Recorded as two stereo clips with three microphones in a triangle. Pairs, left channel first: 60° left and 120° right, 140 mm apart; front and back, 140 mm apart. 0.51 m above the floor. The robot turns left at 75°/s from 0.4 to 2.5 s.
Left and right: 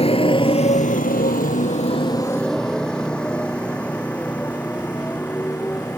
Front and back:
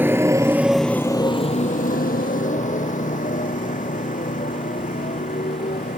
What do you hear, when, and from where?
0.0 s a motorcycle: 105° left; by 6.0 s 20° right